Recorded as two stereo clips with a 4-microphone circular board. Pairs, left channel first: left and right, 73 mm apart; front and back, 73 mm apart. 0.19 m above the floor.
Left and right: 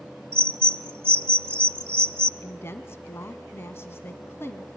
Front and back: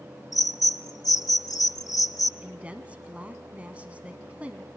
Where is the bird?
35° right, 1.2 m.